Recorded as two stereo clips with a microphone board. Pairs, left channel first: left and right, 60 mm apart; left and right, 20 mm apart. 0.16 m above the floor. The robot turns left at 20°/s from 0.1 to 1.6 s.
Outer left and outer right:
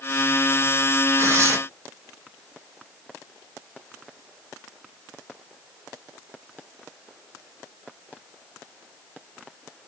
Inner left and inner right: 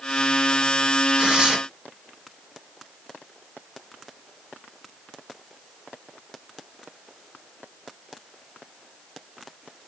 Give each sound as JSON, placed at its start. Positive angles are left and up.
{"t": 1.2, "sound": "tearing paper", "side_deg": -45, "distance_m": 1.8}